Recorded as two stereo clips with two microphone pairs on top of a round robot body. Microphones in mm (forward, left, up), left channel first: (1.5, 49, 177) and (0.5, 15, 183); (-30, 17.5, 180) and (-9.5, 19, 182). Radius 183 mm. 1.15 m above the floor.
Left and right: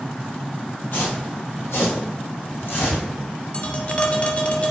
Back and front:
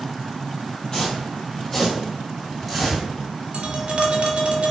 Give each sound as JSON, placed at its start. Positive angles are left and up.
{"t": 0.9, "sound": "footsteps", "azimuth_deg": 115, "distance_m": 2.0}
{"t": 3.5, "sound": "tapping", "azimuth_deg": 40, "distance_m": 1.6}